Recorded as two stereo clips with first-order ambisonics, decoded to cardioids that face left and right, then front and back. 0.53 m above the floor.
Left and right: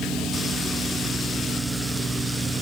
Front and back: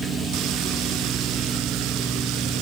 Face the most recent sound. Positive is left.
No sound to turn to.